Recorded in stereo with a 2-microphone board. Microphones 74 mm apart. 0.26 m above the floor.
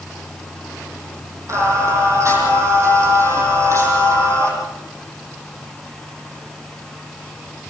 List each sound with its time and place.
1.5 s singing: 40° right (ahead or behind), 8 m